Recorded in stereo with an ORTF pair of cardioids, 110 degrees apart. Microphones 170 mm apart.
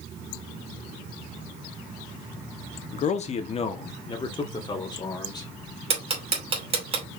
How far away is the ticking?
About 2.5 m.